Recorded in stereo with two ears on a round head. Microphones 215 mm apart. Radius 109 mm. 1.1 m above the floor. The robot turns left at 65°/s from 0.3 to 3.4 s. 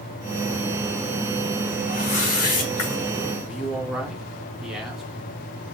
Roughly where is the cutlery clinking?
I don't hear cutlery clinking.